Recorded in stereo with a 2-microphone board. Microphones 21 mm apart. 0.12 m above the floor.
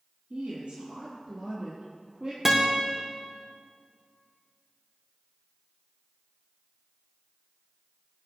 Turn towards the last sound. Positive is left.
turn(degrees=-25)  # may be behind; listen again after turning